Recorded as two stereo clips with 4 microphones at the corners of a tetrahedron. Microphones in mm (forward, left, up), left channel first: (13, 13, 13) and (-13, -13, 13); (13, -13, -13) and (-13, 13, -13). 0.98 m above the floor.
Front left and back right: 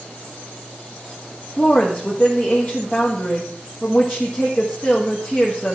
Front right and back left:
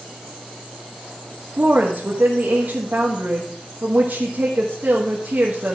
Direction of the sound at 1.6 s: 95° left.